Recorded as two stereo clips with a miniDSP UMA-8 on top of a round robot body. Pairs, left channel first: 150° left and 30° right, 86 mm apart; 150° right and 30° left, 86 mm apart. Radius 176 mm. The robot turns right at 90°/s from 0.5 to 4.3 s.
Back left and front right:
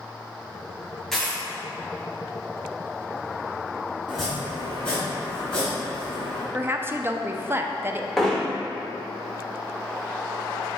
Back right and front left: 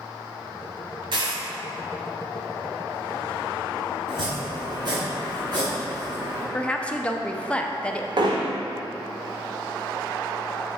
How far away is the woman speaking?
About 0.7 m.